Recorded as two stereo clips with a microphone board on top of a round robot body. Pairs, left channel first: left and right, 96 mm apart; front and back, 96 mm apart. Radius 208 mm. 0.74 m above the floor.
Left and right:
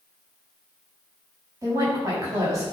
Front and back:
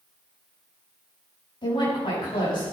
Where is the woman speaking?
35° right, 6 m.